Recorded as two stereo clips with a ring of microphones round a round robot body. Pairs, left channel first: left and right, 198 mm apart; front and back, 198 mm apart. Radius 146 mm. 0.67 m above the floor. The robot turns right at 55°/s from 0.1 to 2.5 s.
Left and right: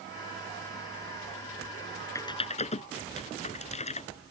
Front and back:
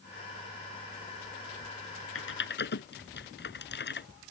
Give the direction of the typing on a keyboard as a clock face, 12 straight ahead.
12 o'clock.